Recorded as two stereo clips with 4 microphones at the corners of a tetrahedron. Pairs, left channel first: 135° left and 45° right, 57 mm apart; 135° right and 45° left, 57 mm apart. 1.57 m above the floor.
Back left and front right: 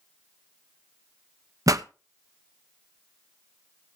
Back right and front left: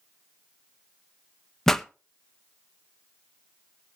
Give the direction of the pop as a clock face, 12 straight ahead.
2 o'clock.